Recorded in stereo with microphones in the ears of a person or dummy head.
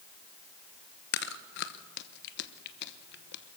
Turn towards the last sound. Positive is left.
turn(degrees=60)  # may be behind; listen again after turning